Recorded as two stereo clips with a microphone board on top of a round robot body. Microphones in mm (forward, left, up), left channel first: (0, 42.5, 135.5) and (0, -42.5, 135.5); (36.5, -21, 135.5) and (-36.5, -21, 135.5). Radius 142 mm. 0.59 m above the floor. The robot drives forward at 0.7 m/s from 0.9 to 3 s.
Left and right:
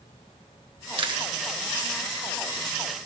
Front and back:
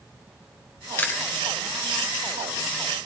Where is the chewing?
65° right, 1.8 m; by 1.3 s 70° right, 1.7 m.